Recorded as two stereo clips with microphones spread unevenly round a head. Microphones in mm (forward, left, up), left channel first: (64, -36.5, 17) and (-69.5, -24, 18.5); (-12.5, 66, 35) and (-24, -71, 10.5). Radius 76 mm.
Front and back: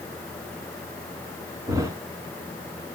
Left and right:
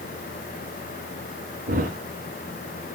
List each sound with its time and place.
1.7 s a thud: 125° right, 2.5 m